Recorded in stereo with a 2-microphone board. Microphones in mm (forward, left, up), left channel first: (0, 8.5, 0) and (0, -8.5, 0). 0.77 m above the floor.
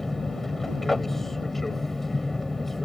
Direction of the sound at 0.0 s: 15° left (ahead or behind).